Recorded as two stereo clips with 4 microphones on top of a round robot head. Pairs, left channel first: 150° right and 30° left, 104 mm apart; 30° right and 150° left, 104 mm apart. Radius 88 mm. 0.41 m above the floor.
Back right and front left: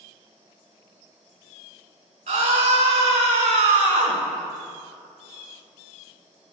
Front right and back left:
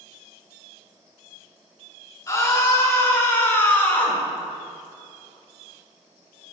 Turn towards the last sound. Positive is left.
turn(degrees=40)